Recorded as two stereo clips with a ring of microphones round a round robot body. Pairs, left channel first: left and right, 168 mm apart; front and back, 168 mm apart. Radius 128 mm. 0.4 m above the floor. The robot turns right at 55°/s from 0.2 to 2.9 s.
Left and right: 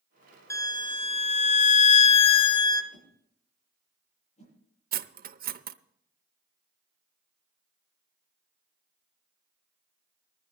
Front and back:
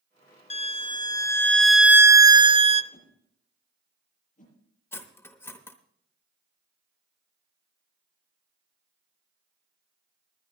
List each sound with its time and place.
0.5 s a violin: 25° left, 0.6 m; by 2.8 s 150° left, 0.6 m
2.9 s a whoosh: 40° left, 8 m
4.9 s cutlery clinking: 75° right, 0.7 m